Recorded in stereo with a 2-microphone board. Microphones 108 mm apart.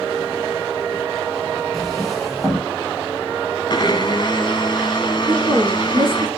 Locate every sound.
1.7 s a drawer: 5° left (ahead or behind), 3 m
3.7 s a blender: 40° left (ahead or behind), 1.1 m
5.3 s a woman speaking: 40° right (ahead or behind), 2.5 m